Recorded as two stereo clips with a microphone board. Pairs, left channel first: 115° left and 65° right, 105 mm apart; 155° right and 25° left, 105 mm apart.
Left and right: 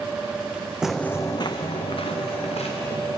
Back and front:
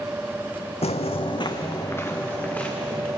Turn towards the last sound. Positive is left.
turn(degrees=120)